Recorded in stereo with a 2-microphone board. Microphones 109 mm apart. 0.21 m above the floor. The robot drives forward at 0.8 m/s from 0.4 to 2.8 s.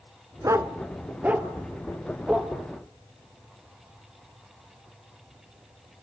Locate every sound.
0.4 s a dog barking: 30° right (ahead or behind), 0.7 m; by 2.5 s 10° right (ahead or behind), 2 m